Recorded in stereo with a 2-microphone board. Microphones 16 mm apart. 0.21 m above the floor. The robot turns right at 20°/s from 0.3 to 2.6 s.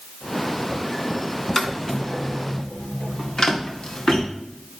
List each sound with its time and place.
1.6 s footsteps: 10° left (ahead or behind), 2 m; by 4.2 s 65° left (ahead or behind), 3 m